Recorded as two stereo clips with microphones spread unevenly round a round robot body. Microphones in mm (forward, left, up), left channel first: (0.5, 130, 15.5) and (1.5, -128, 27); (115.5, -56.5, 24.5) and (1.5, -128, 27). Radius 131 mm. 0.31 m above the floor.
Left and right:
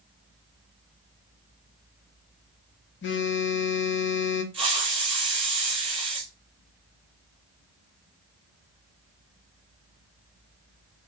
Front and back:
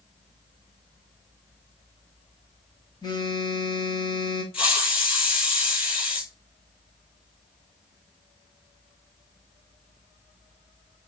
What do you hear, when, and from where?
3.0 s a phone buzzing: 80° left, 1.0 m
4.5 s a hiss: 20° right, 5 m